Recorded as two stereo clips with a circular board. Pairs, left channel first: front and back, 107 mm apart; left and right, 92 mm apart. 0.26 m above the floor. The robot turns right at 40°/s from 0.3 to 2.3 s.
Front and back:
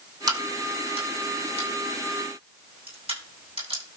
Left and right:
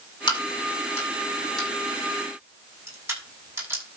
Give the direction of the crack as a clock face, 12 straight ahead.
8 o'clock.